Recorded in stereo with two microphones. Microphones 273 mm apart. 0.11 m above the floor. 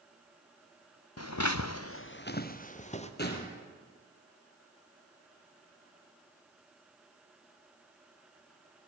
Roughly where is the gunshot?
Left.